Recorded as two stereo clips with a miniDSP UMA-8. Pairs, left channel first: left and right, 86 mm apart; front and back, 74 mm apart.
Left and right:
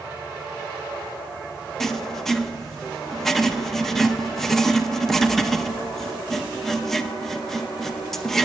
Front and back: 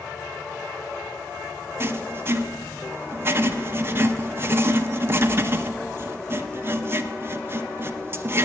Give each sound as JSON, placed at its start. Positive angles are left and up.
{"t": 1.8, "sound": "writing", "azimuth_deg": 170, "distance_m": 0.7}